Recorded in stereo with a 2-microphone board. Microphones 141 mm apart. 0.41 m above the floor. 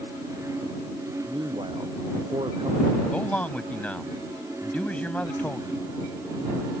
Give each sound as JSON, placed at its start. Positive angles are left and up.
{"t": 1.3, "sound": "a man speaking", "side_deg": -40}
{"t": 3.1, "sound": "a man speaking", "side_deg": 10}